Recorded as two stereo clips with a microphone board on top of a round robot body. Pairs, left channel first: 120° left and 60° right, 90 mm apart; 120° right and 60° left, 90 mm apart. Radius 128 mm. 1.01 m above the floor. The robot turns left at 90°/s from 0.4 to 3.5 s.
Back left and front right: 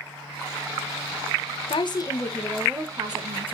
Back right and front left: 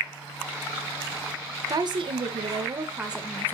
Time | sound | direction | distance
1.7 | a woman speaking | 110° left | 1.3 m